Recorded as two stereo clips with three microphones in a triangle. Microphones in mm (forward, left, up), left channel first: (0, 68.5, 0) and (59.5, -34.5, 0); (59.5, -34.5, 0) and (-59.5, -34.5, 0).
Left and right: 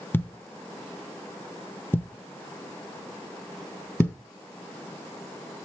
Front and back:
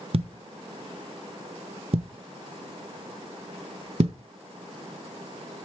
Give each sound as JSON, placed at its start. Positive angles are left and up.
{"t": 0.1, "sound": "a thud", "azimuth_deg": -170, "distance_m": 0.8}